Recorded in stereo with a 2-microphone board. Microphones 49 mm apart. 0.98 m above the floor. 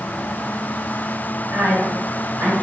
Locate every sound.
1.5 s a woman speaking: 65° right (ahead or behind), 1.6 m; by 2.5 s 45° right (ahead or behind), 2 m